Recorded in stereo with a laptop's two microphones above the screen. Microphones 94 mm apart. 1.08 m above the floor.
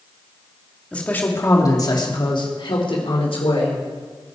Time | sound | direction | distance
0.9 | a man speaking | 10° left (ahead or behind) | 2.0 m